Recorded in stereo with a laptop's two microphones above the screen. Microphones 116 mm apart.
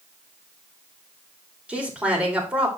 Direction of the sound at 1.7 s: 10° right (ahead or behind).